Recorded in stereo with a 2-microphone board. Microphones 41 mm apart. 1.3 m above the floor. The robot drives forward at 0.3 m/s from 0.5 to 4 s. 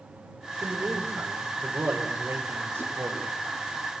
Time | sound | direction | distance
0.6 | a man speaking | 75° right (ahead or behind) | 4.5 m